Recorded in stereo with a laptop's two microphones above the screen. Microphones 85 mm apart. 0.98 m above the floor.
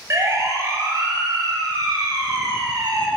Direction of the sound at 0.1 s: 35° right (ahead or behind).